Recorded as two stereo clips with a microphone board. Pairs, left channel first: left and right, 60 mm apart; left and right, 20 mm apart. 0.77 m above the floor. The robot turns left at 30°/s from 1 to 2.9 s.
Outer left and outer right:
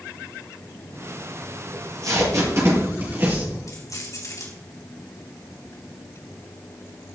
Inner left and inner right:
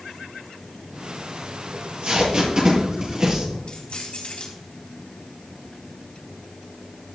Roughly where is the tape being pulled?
Right.